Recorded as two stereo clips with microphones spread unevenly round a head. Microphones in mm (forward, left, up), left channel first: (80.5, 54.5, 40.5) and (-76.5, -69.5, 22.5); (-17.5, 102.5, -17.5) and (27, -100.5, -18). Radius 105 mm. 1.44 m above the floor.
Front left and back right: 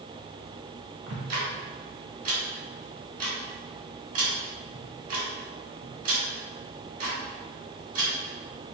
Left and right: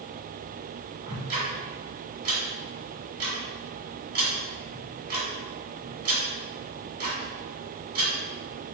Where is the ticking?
100° right, 1.8 m.